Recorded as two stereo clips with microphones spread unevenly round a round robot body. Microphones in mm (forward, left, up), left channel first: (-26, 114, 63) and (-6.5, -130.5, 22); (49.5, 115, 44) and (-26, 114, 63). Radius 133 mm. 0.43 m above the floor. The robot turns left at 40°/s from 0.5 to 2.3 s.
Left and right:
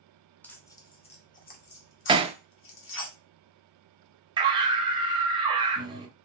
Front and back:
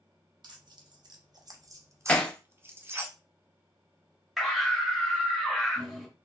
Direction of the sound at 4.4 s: 70° right.